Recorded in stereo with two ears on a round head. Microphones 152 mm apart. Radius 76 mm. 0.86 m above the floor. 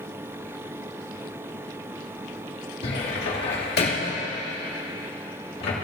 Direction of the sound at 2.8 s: 65° left (ahead or behind).